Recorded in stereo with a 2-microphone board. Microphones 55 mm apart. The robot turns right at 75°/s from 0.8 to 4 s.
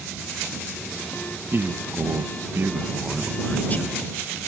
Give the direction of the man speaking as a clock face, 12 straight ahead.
4 o'clock.